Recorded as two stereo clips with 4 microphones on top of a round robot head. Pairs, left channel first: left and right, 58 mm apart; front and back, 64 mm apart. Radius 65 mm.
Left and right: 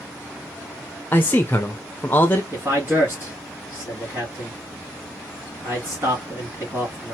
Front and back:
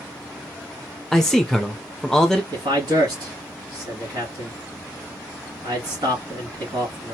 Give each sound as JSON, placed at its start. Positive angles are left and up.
{"t": 1.1, "sound": "a man speaking", "azimuth_deg": 80, "distance_m": 0.6}
{"t": 2.5, "sound": "a man speaking", "azimuth_deg": -155, "distance_m": 2.5}